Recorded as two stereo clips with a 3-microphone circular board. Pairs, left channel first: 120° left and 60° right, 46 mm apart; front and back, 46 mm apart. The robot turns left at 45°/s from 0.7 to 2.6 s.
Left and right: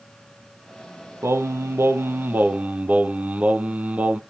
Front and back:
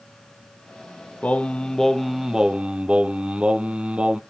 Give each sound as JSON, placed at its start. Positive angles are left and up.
{"t": 1.2, "sound": "singing", "azimuth_deg": -55, "distance_m": 0.7}